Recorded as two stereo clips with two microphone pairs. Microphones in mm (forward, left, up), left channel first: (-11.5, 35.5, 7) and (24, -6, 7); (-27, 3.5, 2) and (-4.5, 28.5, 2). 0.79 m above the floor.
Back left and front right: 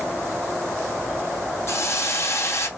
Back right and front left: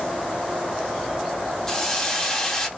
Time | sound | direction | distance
1.7 | a hiss | 155° left | 1.5 m